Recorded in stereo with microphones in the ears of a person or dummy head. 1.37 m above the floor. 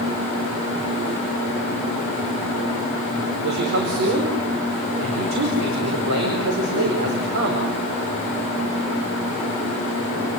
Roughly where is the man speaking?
Right.